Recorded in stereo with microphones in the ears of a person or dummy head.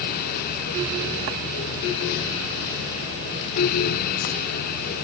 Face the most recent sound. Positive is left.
No sound to turn to.